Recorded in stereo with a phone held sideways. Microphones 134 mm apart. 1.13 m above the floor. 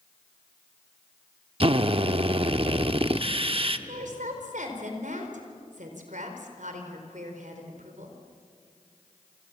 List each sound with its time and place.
1.6 s a drill: 45° right (ahead or behind), 0.9 m
3.9 s a woman speaking: 70° right (ahead or behind), 4.5 m